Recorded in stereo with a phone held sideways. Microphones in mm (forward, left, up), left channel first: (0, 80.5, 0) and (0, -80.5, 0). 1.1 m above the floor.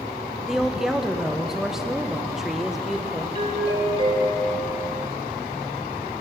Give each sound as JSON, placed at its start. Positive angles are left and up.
{"t": 0.5, "sound": "a woman speaking", "side_deg": -5, "distance_m": 0.8}
{"t": 3.4, "sound": "a doorbell", "side_deg": -35, "distance_m": 1.6}